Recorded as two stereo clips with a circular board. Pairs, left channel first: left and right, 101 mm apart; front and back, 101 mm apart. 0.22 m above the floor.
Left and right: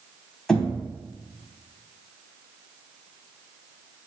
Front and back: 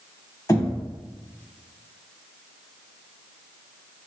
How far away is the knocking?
About 1.2 m.